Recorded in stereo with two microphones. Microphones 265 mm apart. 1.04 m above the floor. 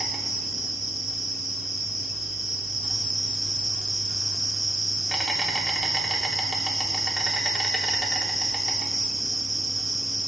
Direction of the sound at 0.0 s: Centre (ahead or behind).